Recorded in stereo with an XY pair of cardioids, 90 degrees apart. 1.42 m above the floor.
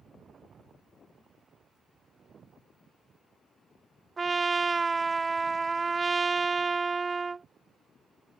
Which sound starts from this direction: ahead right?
A trumpet, at 4.2 s.